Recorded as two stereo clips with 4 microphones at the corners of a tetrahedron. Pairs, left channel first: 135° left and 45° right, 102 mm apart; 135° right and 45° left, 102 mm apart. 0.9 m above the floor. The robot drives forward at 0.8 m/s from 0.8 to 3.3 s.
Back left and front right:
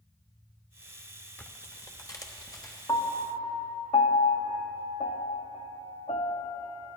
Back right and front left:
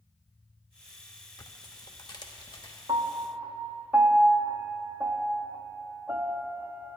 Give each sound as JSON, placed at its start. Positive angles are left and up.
{"t": 1.4, "sound": "tearing paper", "azimuth_deg": -155, "distance_m": 0.6}
{"t": 2.9, "sound": "a piano", "azimuth_deg": 80, "distance_m": 0.5}